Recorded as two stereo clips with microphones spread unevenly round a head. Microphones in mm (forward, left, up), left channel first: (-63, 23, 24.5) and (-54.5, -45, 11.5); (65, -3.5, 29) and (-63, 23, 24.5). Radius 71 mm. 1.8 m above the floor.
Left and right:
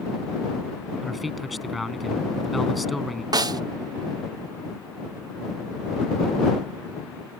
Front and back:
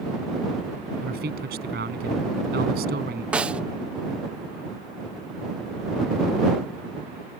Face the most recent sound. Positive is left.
turn(degrees=-110)